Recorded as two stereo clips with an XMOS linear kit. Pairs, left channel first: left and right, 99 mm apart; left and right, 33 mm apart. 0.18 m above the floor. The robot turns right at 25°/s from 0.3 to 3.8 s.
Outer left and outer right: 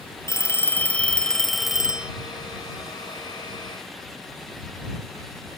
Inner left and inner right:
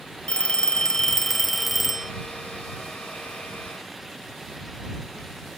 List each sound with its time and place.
0.3 s a phone ringing: 150° left; by 2.1 s 165° right